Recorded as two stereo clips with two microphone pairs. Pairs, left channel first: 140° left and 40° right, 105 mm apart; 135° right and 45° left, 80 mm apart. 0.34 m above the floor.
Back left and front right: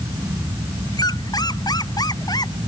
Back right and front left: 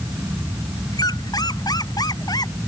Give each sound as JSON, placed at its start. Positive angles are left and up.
{"t": 0.9, "sound": "a squeak", "azimuth_deg": -170}